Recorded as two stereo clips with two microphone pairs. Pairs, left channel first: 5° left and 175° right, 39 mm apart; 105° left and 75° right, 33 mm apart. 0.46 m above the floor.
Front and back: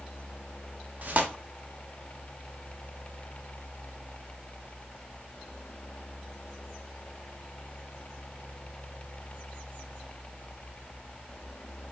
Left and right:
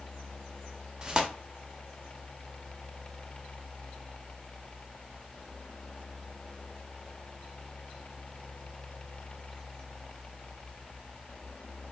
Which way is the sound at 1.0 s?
135° right.